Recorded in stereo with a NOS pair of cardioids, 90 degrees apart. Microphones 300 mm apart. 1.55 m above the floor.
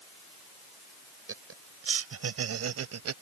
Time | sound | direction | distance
1.3 | laughter | 45° right | ?